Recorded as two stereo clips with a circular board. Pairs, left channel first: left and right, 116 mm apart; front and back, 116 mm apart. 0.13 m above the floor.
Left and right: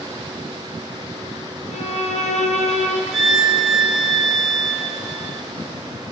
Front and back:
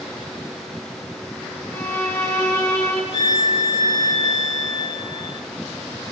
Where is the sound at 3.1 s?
Straight behind, 3.5 m.